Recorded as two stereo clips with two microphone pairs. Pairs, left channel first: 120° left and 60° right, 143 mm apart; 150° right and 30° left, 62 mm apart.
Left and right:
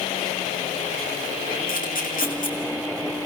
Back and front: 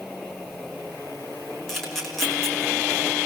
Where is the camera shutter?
125° left, 3.5 m.